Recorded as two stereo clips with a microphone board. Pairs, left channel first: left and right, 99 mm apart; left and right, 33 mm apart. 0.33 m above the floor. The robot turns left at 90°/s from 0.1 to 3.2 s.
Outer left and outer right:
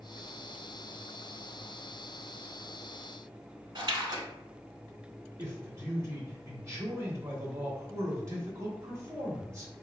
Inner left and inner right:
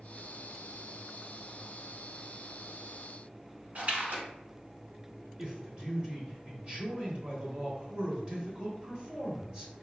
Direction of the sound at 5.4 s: 30° right (ahead or behind).